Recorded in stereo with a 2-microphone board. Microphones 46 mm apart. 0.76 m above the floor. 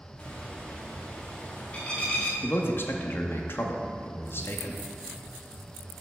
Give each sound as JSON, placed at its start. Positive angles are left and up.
{"t": 0.2, "sound": "a bird", "side_deg": 25, "distance_m": 1.3}
{"t": 2.4, "sound": "a man speaking", "side_deg": 50, "distance_m": 0.8}